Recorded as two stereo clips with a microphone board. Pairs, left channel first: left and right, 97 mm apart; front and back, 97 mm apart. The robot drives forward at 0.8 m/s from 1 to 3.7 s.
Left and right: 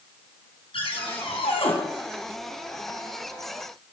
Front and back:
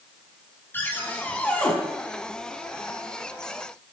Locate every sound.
0.7 s a cupboard door: 70° left, 4 m; by 1.7 s 80° left, 4 m